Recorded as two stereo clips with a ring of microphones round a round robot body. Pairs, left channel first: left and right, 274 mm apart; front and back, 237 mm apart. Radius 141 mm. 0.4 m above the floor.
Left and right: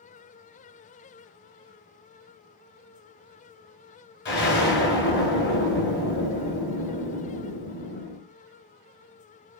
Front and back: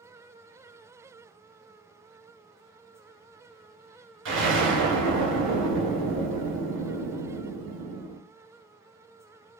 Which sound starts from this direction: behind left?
An explosion, at 4.2 s.